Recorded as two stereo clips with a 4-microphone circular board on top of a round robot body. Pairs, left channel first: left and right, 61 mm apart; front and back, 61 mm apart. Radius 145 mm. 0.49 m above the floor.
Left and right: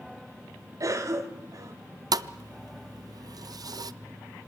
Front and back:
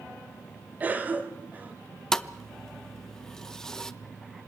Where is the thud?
80° right, 0.6 m.